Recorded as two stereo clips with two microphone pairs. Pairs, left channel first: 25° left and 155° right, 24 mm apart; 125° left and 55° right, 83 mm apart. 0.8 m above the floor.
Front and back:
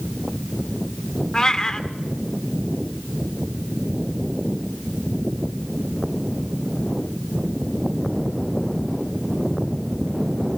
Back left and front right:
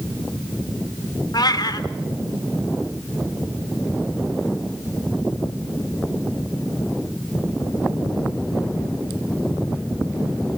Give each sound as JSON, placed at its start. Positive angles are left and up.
{"t": 1.3, "sound": "a cat meowing", "azimuth_deg": 90, "distance_m": 1.1}